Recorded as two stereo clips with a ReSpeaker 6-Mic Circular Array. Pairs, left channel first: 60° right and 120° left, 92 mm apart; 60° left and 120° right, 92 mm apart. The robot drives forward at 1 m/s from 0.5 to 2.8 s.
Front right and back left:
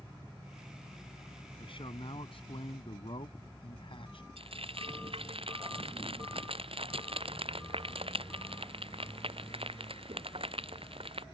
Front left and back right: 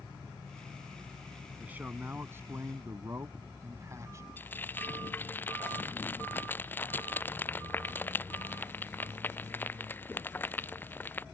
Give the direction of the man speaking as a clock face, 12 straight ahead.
2 o'clock.